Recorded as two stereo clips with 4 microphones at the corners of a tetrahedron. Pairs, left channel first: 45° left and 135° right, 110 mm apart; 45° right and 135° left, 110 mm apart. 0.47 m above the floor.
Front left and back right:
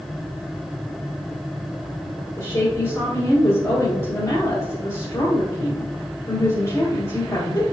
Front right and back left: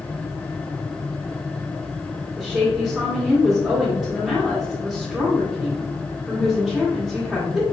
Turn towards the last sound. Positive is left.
turn(degrees=55)